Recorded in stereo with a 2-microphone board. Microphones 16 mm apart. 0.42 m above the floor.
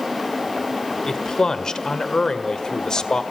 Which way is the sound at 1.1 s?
40° left (ahead or behind).